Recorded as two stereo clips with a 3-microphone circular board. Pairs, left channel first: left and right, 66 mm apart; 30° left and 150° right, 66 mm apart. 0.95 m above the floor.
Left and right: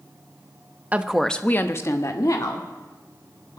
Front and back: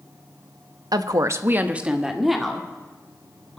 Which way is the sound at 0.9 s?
155° right.